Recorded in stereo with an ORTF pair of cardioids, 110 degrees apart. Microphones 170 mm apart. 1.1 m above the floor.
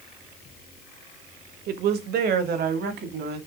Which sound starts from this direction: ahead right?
A woman speaking, at 1.7 s.